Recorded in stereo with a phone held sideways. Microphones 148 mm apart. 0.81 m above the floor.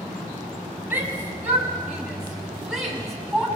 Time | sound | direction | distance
0.9 | a shout | 10° right (ahead or behind) | 6.5 m